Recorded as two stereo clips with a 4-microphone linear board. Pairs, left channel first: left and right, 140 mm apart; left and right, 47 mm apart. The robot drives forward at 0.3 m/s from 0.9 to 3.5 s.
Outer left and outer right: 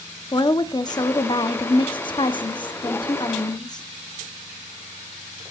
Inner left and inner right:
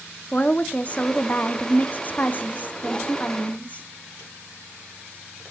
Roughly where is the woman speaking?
Left.